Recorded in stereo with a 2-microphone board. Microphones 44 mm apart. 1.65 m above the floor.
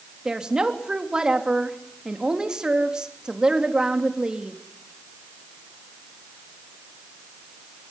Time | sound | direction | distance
0.2 | a woman speaking | 20° right (ahead or behind) | 3 m